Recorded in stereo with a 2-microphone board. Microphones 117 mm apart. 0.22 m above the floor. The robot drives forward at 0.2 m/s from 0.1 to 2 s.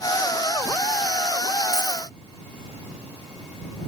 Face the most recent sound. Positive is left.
turn(degrees=15)  # may be behind; listen again after turning